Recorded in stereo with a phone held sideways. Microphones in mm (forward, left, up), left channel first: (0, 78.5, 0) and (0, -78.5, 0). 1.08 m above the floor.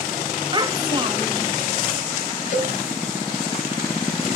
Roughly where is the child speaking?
Right.